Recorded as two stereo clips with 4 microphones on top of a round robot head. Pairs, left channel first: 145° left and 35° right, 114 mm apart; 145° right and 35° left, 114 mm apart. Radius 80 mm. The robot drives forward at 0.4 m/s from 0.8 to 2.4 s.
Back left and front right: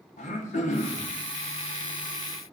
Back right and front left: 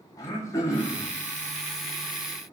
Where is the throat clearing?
150° left, 2.5 m; by 1.1 s 155° left, 2.5 m.